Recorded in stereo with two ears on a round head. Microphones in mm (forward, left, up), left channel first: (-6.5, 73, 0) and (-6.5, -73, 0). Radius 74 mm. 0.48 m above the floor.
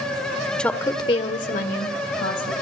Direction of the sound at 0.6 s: 5° left (ahead or behind).